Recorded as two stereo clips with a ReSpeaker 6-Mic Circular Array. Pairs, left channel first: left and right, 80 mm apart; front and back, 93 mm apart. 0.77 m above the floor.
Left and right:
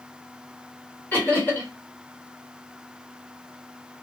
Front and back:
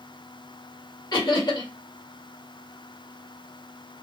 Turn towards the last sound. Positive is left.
turn(degrees=25)